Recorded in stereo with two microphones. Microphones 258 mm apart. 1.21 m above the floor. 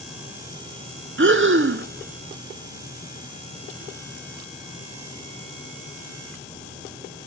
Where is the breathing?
50° right (ahead or behind), 0.5 m.